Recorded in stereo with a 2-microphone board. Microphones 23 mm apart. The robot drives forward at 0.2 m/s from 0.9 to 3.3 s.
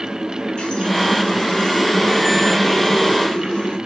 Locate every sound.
0.6 s a running tap: 50° left (ahead or behind), 2.5 m; by 3.8 s 40° left (ahead or behind), 3 m